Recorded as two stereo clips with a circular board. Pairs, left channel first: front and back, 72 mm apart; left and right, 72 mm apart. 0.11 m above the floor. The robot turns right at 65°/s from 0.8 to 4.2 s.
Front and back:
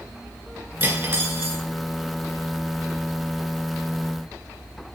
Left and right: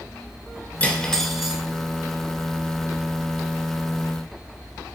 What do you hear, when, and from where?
0.8 s cutlery clinking: 145° left, 1.0 m; by 1.6 s 160° right, 1.0 m